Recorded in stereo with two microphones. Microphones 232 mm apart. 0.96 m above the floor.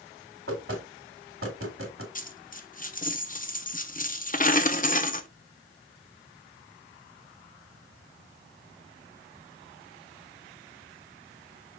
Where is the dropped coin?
35° left (ahead or behind), 0.6 m.